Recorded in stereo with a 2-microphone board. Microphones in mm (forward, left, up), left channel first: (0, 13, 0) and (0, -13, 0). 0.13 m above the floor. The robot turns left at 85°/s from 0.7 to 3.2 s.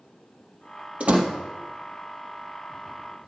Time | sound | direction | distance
1.0 | a door slam | 55° right (ahead or behind) | 3 m